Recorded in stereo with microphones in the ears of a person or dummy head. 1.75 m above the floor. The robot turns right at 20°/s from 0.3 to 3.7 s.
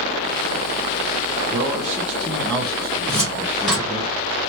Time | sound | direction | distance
1.5 | a man speaking | 30° right | 1.3 m
3.1 | a cupboard door | 10° left (ahead or behind) | 1.3 m